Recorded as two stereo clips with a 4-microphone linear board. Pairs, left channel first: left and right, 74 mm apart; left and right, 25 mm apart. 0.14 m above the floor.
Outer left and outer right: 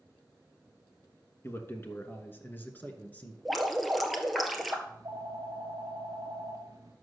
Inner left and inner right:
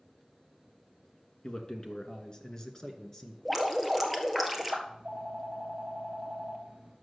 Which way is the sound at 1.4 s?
35° left (ahead or behind).